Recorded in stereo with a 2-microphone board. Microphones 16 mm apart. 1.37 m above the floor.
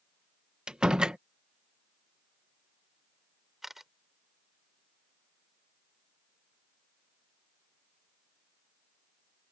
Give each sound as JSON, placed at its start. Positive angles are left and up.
{"t": 0.7, "sound": "a door slam", "side_deg": -75}
{"t": 3.6, "sound": "a camera shutter", "side_deg": -20}